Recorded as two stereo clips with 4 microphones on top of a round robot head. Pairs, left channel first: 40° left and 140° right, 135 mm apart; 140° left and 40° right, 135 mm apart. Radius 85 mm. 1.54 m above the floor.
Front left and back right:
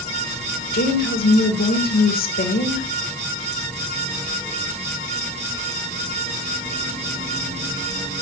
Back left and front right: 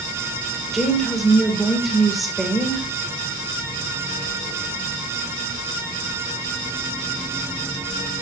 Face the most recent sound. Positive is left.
turn(degrees=50)